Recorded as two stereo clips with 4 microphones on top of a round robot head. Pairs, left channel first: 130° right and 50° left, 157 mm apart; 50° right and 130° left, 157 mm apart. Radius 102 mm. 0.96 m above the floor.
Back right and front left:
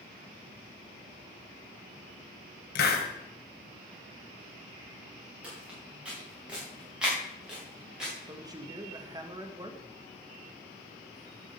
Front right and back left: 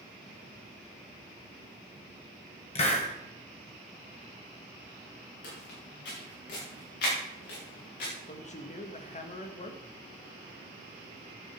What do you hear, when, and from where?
2.8 s a hiss: 105° right, 1.9 m
5.4 s footsteps: 35° right, 5.5 m
8.3 s a man speaking: 15° right, 1.7 m